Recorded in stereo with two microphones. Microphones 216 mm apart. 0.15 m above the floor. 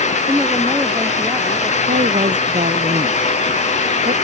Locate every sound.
0.3 s a woman speaking: 10° right (ahead or behind)
1.9 s a woman speaking: 35° right (ahead or behind)